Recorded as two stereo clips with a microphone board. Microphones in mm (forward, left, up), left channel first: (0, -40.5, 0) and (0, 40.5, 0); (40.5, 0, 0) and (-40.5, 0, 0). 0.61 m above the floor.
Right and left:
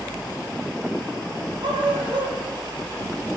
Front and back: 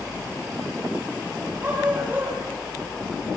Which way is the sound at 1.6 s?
110° left.